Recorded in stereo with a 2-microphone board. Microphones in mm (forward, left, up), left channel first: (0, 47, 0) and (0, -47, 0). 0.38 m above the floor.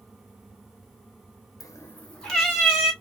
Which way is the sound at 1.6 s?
40° left (ahead or behind).